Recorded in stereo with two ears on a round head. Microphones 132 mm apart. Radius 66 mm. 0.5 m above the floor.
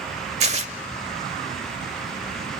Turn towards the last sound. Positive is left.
turn(degrees=-45)  # may be behind; listen again after turning